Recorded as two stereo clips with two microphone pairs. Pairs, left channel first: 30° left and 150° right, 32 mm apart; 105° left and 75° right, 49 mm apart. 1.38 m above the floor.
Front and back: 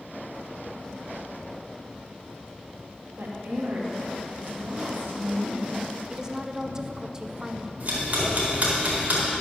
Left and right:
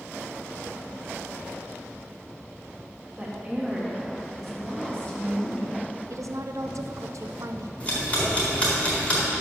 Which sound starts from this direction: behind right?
A woman speaking, at 3.2 s.